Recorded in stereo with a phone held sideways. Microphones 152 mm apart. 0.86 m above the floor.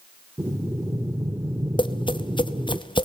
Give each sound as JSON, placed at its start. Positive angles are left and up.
{"t": 0.4, "sound": "breathing", "side_deg": -15, "distance_m": 0.8}
{"t": 1.8, "sound": "tapping", "side_deg": 30, "distance_m": 0.8}